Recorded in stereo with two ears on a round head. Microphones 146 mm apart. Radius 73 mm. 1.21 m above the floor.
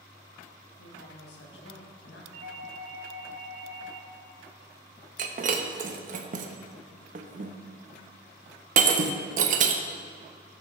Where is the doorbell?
65° right (ahead or behind), 1.8 m.